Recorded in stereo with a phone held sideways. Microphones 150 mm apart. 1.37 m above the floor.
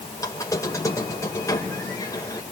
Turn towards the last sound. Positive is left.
turn(degrees=20)  # may be behind; listen again after turning